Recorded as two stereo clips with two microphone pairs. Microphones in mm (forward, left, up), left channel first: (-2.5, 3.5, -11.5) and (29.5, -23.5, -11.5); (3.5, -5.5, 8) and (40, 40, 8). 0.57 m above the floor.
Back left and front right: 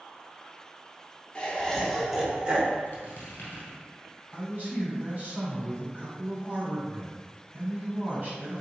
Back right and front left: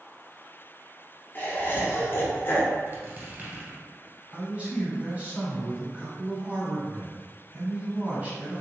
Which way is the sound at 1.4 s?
165° right.